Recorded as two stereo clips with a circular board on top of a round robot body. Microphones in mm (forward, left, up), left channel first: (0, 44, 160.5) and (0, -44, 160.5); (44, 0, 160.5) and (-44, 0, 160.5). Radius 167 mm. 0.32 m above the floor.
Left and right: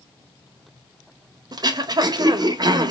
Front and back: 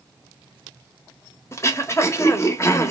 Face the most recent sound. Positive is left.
turn(degrees=-55)